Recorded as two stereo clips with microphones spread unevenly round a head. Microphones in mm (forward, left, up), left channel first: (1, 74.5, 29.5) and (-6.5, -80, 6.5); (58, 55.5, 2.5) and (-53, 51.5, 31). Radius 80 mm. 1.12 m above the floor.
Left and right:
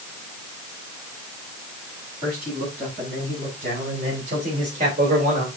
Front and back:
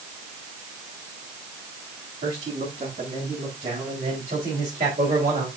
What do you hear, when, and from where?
2.2 s a man speaking: 135° right, 7 m; by 5.5 s 130° right, 3 m